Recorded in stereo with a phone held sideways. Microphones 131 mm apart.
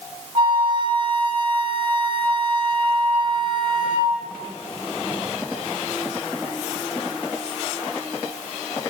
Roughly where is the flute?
Right.